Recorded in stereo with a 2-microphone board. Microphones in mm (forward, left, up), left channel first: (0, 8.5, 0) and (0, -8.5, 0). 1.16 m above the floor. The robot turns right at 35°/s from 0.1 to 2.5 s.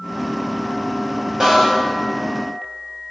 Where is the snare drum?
30° right (ahead or behind), 3 m; by 1.8 s 40° right (ahead or behind), 3 m.